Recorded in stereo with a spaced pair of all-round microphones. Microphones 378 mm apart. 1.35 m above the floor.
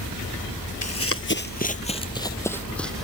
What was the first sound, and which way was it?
Running footsteps, 40° left (ahead or behind).